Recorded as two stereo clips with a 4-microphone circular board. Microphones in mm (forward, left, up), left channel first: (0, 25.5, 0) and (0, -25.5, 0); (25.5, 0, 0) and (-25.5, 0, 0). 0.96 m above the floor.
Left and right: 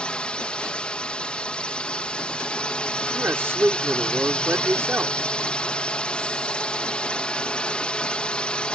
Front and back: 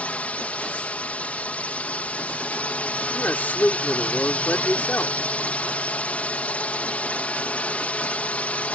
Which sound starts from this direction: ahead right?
A man speaking, at 3.1 s.